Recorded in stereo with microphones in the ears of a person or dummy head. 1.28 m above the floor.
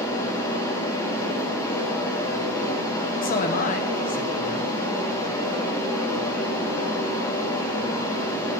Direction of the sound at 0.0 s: 20° left (ahead or behind).